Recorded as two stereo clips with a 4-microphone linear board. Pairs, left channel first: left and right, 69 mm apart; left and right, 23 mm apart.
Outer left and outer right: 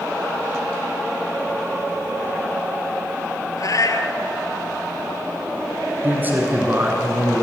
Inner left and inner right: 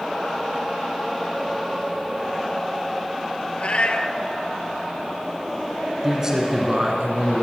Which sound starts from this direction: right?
A man speaking, at 6.0 s.